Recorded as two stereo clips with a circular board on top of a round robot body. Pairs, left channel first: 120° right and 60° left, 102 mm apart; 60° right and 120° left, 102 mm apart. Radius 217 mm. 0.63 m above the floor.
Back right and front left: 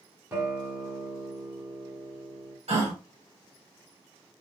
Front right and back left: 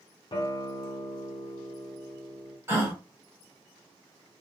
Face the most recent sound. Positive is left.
turn(degrees=55)